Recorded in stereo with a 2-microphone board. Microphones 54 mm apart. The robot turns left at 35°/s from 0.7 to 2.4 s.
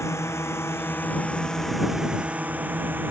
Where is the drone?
60° left (ahead or behind); by 3.1 s 40° right (ahead or behind).